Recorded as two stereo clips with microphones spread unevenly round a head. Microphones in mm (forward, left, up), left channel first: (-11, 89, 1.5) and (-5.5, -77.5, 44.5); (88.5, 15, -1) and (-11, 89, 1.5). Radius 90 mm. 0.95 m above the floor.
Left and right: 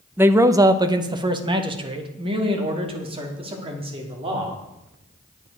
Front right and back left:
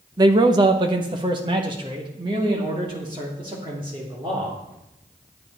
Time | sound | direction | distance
0.2 | a man speaking | straight behind | 0.6 m